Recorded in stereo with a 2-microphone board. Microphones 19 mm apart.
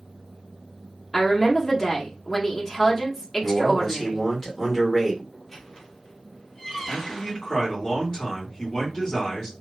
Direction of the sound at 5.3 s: 20° left (ahead or behind).